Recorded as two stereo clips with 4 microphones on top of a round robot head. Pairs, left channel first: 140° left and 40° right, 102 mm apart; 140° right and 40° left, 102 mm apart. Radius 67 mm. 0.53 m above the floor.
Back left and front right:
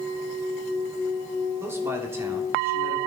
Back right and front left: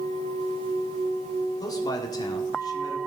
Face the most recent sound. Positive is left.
turn(degrees=-100)